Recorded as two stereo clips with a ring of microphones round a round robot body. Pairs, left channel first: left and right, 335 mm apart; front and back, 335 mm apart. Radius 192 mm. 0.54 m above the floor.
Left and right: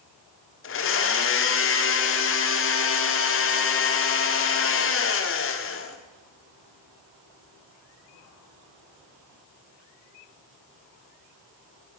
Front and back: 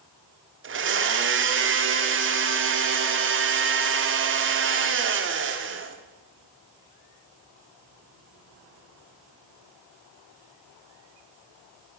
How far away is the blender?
About 1.4 m.